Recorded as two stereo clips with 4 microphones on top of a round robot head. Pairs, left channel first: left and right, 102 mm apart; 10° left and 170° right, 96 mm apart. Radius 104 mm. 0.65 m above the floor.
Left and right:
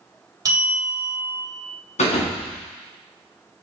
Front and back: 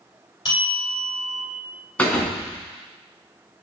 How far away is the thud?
About 2.5 m.